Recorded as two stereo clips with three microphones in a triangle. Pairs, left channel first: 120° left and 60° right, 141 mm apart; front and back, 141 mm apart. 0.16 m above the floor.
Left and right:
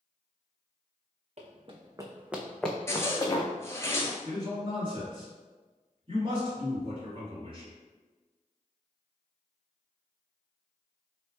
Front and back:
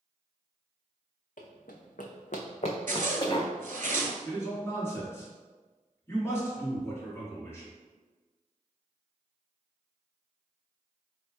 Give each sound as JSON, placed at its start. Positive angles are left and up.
{"t": 1.4, "sound": "running footsteps", "azimuth_deg": -20, "distance_m": 0.7}
{"t": 2.9, "sound": "a zipper", "azimuth_deg": -170, "distance_m": 0.6}
{"t": 4.2, "sound": "a man speaking", "azimuth_deg": -60, "distance_m": 1.7}